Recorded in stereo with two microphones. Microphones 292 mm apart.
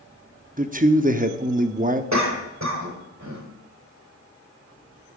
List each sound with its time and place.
0.6 s a man speaking: 30° right (ahead or behind), 0.6 m
2.1 s a cough: 65° right (ahead or behind), 2.5 m